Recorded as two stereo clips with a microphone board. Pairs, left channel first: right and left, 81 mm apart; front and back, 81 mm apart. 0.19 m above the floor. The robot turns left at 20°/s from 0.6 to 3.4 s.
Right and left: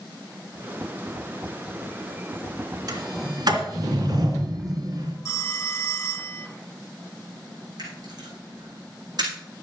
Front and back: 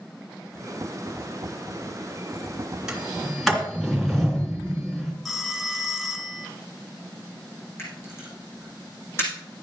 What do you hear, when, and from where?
2.9 s a sliding door: 100° left, 3 m; by 5.1 s 90° left, 3 m
5.2 s a phone ringing: 90° right, 1.0 m
7.8 s a camera shutter: 60° left, 5.5 m